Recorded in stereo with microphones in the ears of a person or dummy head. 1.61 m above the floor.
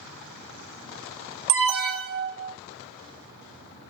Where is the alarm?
60° right (ahead or behind), 1.1 m.